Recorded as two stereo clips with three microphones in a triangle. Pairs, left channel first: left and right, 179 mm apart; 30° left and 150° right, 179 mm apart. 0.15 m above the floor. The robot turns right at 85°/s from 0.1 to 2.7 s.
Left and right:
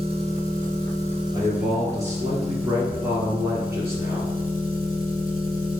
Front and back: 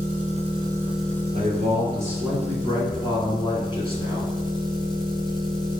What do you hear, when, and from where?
0.0 s an engine running: 140° right, 1.1 m; by 5.8 s 85° left, 1.1 m
1.3 s a man speaking: 140° right, 1.9 m; by 4.3 s 20° right, 1.9 m